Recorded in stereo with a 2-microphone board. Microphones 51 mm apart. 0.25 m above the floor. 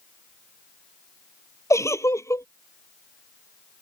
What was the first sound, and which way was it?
A giggle, 75° left (ahead or behind).